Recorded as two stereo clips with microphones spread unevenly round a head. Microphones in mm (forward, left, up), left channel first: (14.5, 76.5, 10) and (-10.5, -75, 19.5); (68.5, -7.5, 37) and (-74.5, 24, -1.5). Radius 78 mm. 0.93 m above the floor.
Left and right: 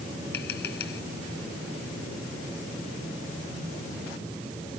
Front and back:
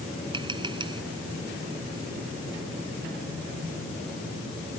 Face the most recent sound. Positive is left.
turn(degrees=105)